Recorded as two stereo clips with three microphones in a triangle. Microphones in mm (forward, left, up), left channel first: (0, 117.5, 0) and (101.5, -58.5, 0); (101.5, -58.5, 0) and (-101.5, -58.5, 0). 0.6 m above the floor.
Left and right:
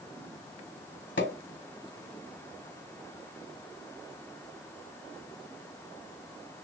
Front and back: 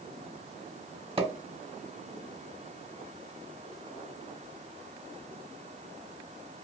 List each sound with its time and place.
1.2 s a pop: 120° left, 1.4 m